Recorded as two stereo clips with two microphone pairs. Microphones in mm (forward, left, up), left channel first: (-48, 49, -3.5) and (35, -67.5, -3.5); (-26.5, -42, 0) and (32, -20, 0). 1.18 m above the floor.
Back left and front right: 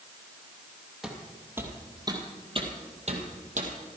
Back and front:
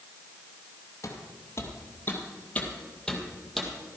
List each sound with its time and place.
1.0 s footsteps: 140° right, 2 m; by 3.7 s 70° right, 2.5 m